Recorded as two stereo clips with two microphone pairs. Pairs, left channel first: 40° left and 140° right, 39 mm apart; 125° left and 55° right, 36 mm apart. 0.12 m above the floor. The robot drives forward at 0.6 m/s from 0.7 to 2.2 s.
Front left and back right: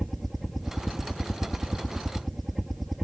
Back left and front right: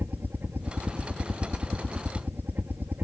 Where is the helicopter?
50° right; by 3.0 s 55° right.